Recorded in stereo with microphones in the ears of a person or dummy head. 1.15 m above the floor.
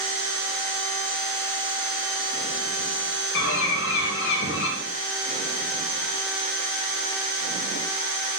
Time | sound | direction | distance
3.3 | a bird | 70° left (ahead or behind) | 1.1 m